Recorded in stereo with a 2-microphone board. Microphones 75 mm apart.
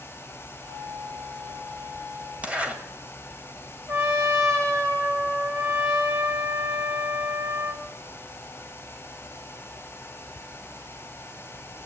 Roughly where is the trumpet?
Right.